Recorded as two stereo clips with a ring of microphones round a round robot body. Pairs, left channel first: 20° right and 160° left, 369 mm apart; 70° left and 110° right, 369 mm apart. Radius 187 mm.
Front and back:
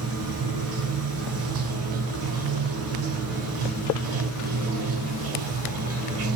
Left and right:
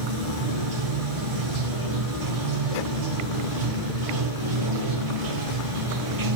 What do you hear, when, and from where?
0.0 s running water: 150° right, 0.7 m